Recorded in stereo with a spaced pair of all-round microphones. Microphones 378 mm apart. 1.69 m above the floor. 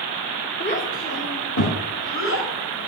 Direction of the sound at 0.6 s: 25° left (ahead or behind).